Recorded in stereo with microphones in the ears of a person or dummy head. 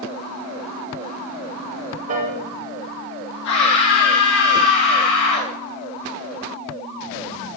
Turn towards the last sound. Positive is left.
turn(degrees=65)  # may be behind; listen again after turning